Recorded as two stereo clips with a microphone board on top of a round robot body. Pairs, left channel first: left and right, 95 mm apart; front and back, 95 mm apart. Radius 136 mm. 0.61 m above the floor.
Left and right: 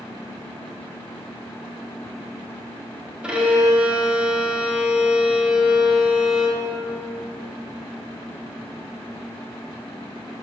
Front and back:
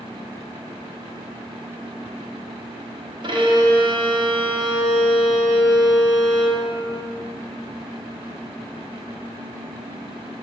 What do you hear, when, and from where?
3.2 s a violin: 170° right, 1.0 m